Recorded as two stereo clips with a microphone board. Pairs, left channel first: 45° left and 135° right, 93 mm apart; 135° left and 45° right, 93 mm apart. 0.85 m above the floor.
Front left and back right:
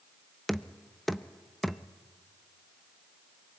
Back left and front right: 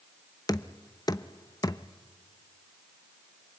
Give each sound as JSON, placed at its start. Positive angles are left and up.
{"t": 0.5, "sound": "knocking", "azimuth_deg": 130, "distance_m": 0.6}